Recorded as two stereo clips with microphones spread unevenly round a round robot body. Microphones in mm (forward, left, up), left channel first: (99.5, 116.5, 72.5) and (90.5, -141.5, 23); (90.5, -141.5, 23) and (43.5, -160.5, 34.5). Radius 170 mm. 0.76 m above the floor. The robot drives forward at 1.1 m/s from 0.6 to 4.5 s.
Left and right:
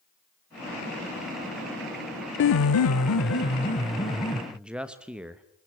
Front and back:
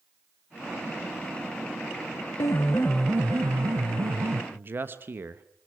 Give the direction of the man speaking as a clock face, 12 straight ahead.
5 o'clock.